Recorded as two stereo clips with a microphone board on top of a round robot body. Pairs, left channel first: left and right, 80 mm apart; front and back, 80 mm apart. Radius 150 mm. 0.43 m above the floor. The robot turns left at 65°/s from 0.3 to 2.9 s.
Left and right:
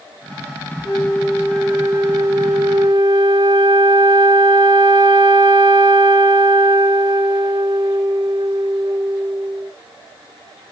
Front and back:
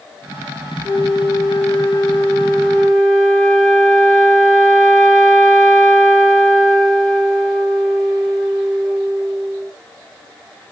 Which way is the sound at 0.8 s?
55° left.